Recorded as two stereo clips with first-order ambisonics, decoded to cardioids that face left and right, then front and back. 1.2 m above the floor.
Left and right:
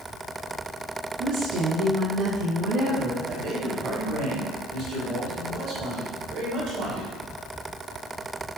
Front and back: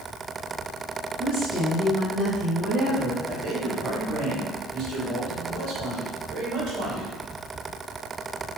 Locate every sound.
1.2 s a woman speaking: 105° right, 1.3 m
3.3 s a man speaking: 130° right, 1.6 m